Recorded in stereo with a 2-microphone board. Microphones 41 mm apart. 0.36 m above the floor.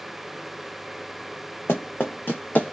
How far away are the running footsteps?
About 1.1 m.